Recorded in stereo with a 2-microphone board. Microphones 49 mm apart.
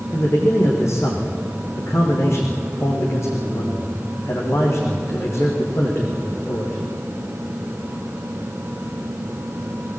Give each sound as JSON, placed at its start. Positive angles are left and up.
{"t": 0.1, "sound": "a man speaking", "side_deg": 75, "distance_m": 6.5}